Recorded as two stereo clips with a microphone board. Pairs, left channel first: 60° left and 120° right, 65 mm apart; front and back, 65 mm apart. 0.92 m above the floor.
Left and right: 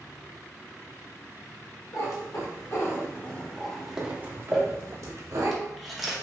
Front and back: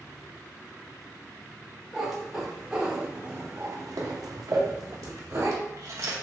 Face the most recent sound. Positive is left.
turn(degrees=150)